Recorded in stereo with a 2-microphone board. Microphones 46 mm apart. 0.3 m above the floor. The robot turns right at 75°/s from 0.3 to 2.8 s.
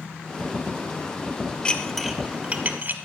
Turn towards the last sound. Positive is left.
turn(degrees=-45)  # may be behind; listen again after turning